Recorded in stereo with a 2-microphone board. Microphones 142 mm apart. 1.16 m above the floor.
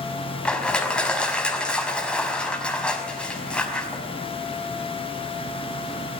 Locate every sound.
0.5 s crushing: 5° left (ahead or behind), 5 m